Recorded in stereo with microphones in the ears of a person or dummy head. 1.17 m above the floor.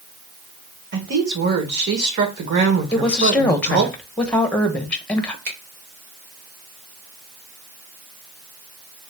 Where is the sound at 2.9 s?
5° left (ahead or behind), 0.8 m.